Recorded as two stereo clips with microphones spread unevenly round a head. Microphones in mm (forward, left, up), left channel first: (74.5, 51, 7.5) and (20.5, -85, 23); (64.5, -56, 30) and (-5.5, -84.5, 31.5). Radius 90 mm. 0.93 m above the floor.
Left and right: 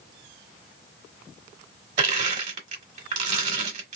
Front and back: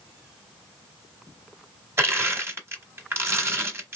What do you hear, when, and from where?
2.0 s crushing: 110° right, 1.2 m